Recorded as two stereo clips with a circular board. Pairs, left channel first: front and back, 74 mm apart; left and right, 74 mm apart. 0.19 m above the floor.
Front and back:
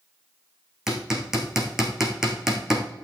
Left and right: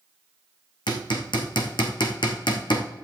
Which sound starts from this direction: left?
Hammering, at 0.9 s.